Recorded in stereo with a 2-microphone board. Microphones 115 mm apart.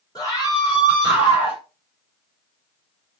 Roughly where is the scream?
Left.